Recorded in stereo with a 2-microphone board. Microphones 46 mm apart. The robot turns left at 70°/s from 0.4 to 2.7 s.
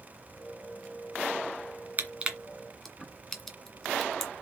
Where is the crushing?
40° right (ahead or behind), 1.6 m; by 4.3 s 5° left (ahead or behind), 1.6 m.